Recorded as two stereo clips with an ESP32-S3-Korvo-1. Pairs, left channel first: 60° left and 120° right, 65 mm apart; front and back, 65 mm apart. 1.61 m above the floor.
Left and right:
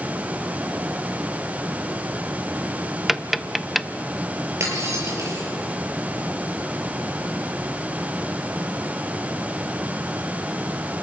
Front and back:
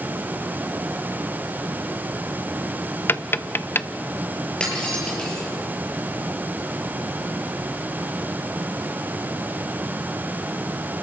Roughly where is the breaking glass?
Right.